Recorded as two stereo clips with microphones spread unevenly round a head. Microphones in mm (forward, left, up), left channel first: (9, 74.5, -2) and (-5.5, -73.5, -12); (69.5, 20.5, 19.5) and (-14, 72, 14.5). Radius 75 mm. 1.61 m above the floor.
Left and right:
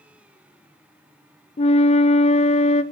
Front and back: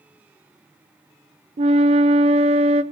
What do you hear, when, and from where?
1.6 s a flute: 135° left, 0.5 m